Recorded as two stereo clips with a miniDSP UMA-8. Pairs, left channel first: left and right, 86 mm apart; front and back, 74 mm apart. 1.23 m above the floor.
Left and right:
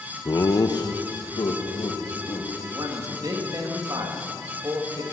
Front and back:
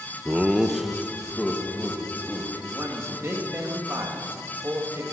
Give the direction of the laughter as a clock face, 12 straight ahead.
8 o'clock.